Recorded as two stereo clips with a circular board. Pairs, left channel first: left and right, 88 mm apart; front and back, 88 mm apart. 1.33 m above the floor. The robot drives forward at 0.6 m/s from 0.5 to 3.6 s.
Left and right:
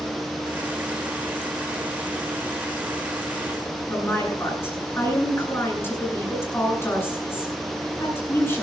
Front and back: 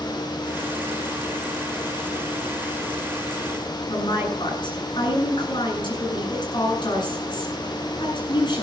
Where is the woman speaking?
25° left, 9 m.